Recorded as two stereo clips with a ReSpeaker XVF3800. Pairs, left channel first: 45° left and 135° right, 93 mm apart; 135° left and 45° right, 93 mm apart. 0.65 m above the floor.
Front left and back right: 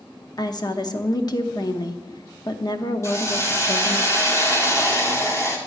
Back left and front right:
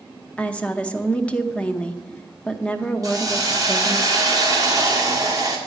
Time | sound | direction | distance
0.4 | a woman speaking | 60° left | 0.8 m
3.0 | a hiss | 5° right | 1.7 m